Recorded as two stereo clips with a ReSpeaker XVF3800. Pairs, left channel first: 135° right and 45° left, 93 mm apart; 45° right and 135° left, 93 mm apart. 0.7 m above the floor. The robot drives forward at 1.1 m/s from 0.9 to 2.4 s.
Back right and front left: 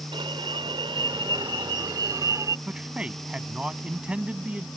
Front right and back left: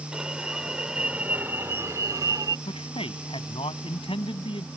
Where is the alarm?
50° left; by 2.6 s 90° left.